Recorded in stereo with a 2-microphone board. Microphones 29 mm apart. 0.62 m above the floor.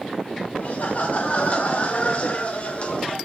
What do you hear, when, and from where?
0.6 s laughter: 55° left (ahead or behind), 2 m; by 3.2 s 35° left (ahead or behind), 2.5 m